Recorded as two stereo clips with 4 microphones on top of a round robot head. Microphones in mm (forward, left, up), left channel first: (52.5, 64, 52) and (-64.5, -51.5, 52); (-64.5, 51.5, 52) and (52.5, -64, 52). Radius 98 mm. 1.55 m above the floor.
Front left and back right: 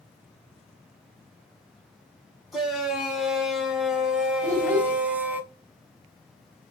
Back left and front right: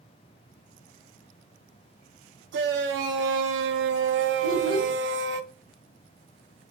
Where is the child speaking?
125° left, 4.5 m.